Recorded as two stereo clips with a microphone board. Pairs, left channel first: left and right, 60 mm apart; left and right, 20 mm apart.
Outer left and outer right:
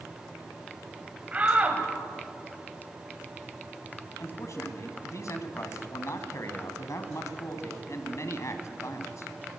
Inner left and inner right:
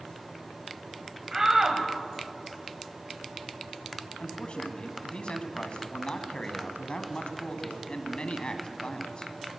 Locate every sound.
1.3 s a shout: 25° right (ahead or behind), 1.7 m
4.2 s a man speaking: 50° left (ahead or behind), 2 m